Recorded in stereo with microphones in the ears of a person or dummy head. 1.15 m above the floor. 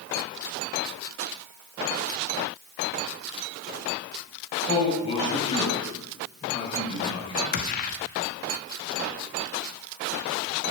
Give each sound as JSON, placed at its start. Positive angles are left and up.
{"t": 4.7, "sound": "a man speaking", "side_deg": 35, "distance_m": 6.5}
{"t": 7.5, "sound": "a gunshot", "side_deg": 45, "distance_m": 0.9}